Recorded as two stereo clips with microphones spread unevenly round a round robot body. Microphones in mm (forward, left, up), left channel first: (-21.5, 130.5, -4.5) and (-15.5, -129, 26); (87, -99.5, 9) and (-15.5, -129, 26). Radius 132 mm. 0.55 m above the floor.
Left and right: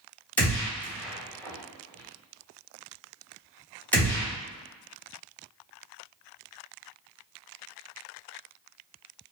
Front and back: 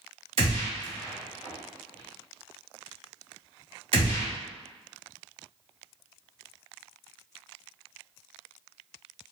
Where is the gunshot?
170° left, 1.0 m.